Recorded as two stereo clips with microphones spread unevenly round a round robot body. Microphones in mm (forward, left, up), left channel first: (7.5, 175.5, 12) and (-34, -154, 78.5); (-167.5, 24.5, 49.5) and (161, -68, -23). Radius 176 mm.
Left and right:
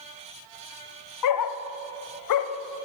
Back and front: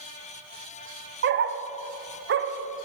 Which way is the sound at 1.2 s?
45° left.